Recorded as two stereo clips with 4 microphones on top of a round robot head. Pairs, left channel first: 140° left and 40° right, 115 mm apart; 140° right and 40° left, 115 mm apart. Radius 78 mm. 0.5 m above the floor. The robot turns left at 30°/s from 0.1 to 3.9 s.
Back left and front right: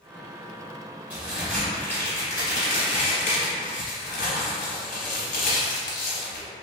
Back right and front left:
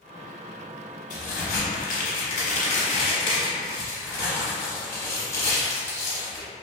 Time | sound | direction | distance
1.1 | a crack | 120° right | 0.8 m